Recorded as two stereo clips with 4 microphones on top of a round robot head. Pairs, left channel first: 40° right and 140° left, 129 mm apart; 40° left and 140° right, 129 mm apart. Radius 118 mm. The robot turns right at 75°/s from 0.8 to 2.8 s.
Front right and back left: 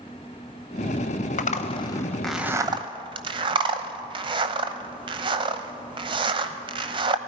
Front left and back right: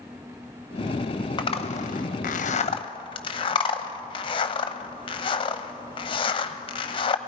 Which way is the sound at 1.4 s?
15° right.